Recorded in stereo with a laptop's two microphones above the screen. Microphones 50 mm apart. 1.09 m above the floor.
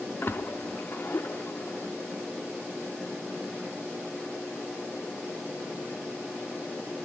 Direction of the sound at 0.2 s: 40° left (ahead or behind).